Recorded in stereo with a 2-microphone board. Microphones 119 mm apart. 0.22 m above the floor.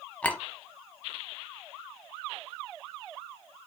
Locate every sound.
0.2 s a clink: 10° left (ahead or behind), 0.9 m